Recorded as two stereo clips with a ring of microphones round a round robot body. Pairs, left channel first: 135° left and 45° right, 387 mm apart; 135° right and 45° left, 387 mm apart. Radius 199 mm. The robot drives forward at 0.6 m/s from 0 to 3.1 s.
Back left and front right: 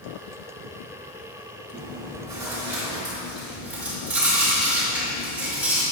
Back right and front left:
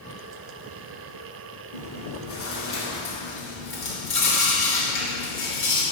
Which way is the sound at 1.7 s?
125° right.